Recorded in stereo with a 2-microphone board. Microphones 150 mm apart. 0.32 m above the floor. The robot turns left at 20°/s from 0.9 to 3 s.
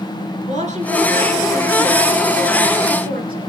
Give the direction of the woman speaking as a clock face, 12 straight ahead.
2 o'clock.